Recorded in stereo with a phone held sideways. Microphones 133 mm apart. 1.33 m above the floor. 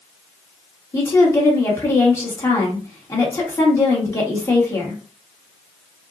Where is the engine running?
No engine running in this recording.